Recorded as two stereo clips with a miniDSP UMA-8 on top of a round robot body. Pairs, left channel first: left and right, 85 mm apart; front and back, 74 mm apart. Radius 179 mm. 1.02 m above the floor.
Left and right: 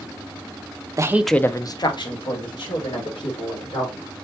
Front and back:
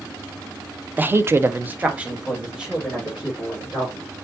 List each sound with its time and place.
1.0 s a woman speaking: 120° right, 0.7 m; by 4.1 s 100° left, 3.5 m